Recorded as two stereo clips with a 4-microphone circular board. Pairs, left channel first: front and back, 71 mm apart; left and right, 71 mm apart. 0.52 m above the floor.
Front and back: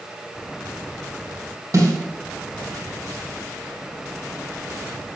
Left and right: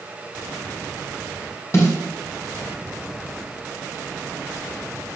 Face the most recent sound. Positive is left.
turn(degrees=140)